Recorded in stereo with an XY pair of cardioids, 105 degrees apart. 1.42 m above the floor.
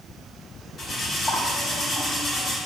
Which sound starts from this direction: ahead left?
Cutlery clinking, at 0.8 s.